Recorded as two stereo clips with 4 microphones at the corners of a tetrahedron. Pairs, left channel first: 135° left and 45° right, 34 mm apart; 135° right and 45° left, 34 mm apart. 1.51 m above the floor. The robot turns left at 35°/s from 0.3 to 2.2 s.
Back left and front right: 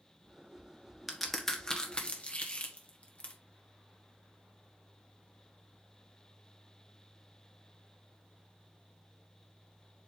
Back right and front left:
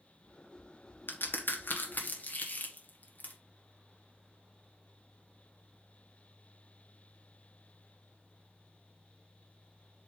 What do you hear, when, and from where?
1.1 s a crack: 135° right, 1.4 m; by 3.3 s 170° right, 1.4 m